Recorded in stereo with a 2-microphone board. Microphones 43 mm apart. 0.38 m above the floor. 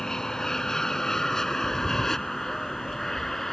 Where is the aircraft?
10° left (ahead or behind); by 3.5 s 5° left (ahead or behind).